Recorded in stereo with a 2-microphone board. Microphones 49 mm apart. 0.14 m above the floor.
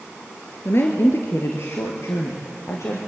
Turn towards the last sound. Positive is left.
turn(degrees=70)  # may be behind; listen again after turning